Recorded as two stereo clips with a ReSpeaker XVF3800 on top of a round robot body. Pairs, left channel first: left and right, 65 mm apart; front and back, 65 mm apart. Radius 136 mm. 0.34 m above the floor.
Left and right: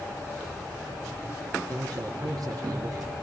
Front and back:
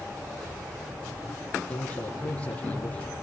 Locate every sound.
1.7 s a man speaking: 70° right, 4.5 m